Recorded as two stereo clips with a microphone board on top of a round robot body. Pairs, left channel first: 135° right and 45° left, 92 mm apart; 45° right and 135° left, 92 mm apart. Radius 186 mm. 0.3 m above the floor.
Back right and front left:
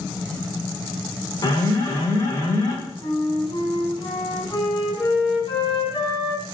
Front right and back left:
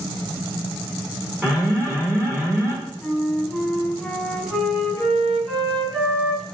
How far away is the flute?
About 2.5 m.